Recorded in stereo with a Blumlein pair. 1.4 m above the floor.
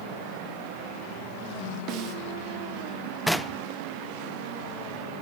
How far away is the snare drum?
About 2.5 m.